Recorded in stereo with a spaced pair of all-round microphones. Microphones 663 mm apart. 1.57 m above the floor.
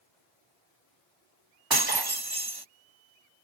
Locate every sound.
1.7 s breaking glass: 35° right (ahead or behind)